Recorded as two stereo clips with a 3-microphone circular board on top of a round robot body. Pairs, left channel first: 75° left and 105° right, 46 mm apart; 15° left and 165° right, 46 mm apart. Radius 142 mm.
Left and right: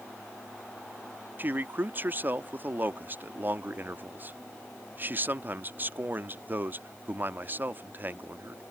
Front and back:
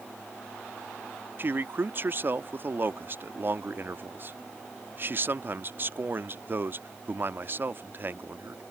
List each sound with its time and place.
1.4 s a man speaking: 140° right